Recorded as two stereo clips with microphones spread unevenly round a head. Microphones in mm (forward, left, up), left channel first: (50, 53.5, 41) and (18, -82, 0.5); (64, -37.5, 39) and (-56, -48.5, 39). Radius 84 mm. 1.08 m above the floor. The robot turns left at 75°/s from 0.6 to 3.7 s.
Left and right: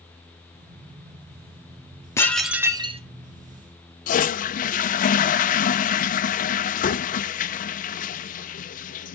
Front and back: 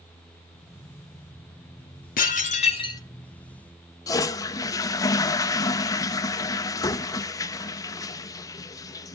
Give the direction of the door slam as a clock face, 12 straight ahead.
No door slam in this recording.